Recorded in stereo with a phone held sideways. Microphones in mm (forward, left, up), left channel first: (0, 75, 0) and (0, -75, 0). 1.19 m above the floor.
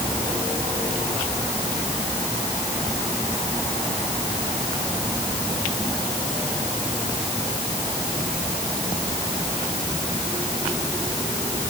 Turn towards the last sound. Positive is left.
No sound to turn to.